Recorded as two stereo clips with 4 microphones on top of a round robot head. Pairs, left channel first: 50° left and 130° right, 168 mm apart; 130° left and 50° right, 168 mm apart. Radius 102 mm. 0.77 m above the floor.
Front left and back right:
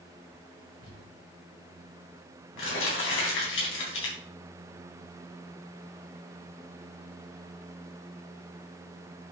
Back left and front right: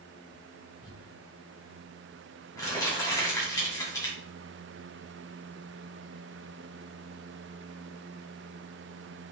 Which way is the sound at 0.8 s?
55° left.